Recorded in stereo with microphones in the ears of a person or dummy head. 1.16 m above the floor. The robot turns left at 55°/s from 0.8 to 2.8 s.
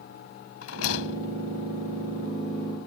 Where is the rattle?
80° left; by 1.3 s 55° left (ahead or behind).